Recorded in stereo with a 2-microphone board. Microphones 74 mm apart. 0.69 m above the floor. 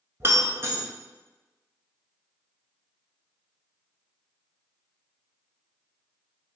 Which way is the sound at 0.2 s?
35° right (ahead or behind).